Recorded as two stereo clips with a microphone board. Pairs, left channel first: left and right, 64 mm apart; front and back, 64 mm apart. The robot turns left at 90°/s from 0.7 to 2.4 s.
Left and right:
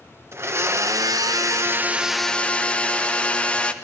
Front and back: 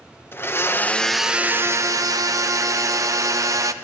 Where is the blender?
50° right, 0.9 m; by 3.7 s 160° left, 0.9 m.